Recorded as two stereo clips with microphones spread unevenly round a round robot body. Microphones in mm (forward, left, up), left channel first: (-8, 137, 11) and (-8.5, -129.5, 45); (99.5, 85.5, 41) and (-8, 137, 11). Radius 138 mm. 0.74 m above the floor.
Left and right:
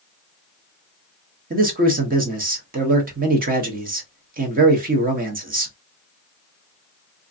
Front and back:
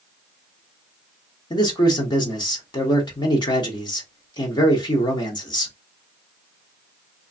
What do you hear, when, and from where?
1.5 s a man speaking: 60° right, 1.0 m